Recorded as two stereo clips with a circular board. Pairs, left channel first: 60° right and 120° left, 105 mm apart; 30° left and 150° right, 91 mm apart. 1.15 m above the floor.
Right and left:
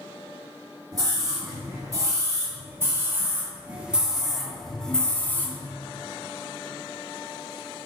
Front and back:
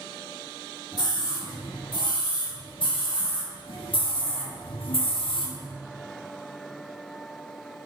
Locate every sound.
0.9 s a scream: 70° left, 2.5 m; by 5.7 s 5° left, 1.6 m